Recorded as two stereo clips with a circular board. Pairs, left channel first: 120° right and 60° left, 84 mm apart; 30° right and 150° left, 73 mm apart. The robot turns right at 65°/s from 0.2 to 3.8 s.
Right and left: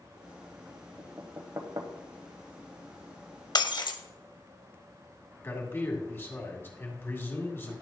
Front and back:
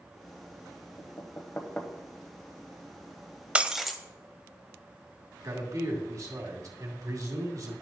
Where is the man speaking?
Straight behind, 2 m.